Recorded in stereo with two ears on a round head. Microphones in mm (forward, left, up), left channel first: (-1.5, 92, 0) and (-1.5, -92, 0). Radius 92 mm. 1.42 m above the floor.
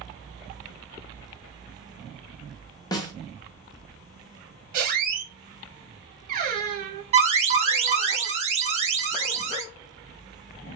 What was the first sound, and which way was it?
A snare drum, 20° left (ahead or behind).